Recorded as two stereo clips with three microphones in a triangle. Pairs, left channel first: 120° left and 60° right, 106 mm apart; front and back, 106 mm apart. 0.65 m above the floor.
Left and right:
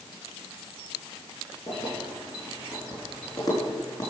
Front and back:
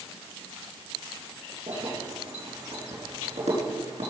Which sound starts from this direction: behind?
Keys jangling, at 1.7 s.